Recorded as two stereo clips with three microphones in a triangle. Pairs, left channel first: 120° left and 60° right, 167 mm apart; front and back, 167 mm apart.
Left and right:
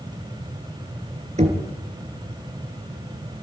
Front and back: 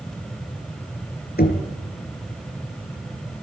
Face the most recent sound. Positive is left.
turn(degrees=-15)